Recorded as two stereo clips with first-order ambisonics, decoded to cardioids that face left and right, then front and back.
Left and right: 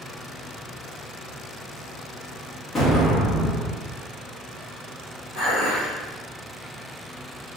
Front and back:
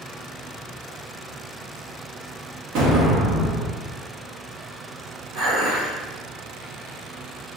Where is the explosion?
165° left, 1.1 m.